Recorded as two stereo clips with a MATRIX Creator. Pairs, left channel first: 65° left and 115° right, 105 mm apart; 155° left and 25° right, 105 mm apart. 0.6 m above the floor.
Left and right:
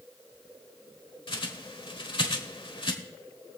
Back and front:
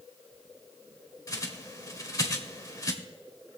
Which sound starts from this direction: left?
A bird, at 1.3 s.